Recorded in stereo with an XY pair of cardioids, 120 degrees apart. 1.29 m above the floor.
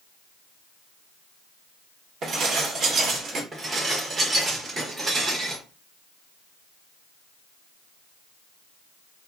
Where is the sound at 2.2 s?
50° right, 1.0 m.